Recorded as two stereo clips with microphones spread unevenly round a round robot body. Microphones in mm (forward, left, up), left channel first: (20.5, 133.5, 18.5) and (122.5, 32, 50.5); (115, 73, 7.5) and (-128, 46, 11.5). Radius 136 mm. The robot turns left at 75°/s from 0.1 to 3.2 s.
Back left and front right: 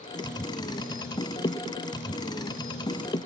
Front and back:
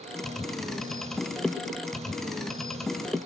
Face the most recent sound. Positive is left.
No sound to turn to.